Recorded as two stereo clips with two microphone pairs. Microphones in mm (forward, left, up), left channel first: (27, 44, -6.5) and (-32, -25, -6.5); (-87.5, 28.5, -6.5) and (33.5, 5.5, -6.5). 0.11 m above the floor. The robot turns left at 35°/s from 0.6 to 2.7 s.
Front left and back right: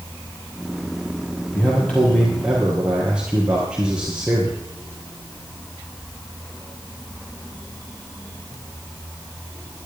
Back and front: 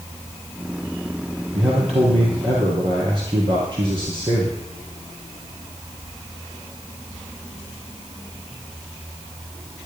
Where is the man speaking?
10° right, 3.5 m; by 4.6 s 50° right, 3.5 m.